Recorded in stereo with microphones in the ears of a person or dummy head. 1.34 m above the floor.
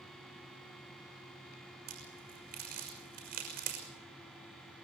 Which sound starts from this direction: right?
A crack, at 1.9 s.